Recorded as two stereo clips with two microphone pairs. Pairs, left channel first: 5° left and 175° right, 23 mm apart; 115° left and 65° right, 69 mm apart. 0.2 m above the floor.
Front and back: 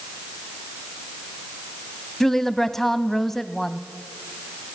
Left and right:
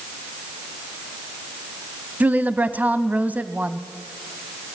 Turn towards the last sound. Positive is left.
turn(degrees=-55)